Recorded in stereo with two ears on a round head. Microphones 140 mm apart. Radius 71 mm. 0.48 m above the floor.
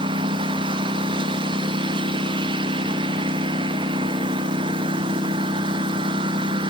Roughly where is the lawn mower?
Right.